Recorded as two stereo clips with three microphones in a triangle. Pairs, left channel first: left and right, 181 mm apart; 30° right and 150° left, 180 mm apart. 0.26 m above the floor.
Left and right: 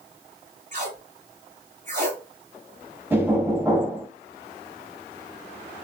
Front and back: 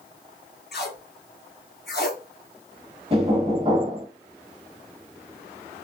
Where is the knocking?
165° right, 1.5 m.